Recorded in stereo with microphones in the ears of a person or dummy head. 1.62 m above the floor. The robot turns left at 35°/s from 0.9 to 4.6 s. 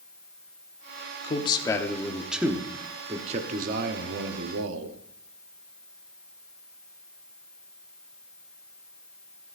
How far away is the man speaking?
About 1.0 m.